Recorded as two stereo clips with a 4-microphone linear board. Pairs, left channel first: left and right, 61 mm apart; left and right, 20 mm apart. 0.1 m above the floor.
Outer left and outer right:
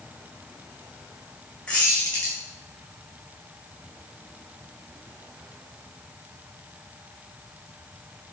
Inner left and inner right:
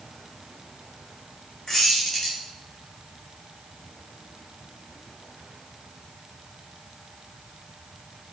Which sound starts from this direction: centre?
A squeak, at 1.7 s.